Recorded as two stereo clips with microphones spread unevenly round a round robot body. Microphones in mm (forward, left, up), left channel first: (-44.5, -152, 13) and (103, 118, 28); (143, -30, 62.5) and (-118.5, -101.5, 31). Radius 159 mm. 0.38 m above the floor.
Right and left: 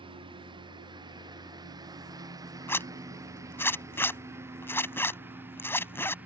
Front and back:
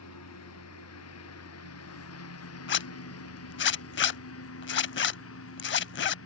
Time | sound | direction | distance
0.0 | a lawn mower | 15° right | ?
2.7 | a zipper | 35° right | ?